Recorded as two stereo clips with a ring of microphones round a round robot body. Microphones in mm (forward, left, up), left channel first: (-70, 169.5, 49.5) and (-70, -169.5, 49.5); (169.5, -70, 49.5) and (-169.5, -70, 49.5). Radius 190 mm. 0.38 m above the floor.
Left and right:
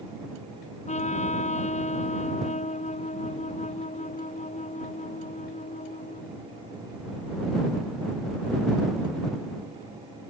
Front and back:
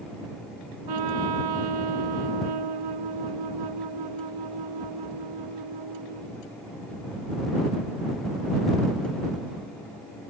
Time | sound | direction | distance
0.9 | a trumpet | 160° left | ?